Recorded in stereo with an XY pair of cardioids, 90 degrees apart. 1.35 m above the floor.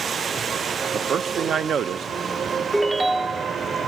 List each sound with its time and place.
0.9 s a man speaking: 60° right, 0.9 m
2.7 s a ringtone: 20° right, 0.7 m